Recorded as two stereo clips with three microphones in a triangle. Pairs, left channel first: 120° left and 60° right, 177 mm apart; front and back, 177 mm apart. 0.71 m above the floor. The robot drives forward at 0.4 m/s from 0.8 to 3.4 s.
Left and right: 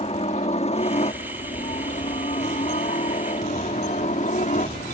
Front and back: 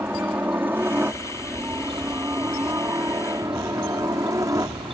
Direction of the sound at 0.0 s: 110° left.